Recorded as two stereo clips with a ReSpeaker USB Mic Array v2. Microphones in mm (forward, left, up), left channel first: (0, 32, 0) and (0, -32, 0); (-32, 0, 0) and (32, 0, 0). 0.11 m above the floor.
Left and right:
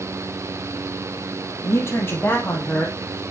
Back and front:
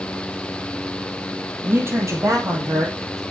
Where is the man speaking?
55° left, 2.5 m; by 3.2 s 15° left, 4 m.